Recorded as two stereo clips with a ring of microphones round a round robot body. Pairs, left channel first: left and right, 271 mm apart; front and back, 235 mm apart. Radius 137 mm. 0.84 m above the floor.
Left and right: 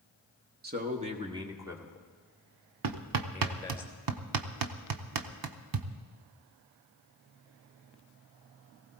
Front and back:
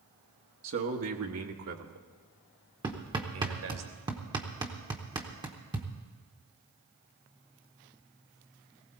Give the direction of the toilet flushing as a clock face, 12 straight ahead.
No toilet flushing in this recording.